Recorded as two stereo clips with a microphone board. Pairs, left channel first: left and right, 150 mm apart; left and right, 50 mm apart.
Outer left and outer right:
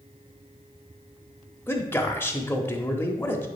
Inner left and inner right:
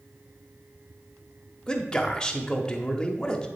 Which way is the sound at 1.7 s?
15° left (ahead or behind).